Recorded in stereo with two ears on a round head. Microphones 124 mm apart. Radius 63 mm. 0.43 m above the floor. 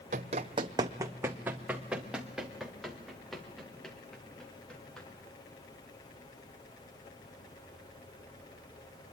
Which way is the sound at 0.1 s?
55° right (ahead or behind).